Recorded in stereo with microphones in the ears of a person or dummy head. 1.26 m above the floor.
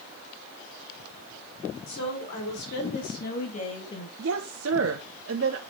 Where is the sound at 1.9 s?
70° left (ahead or behind), 4 m; by 4.1 s 25° left (ahead or behind), 1.4 m.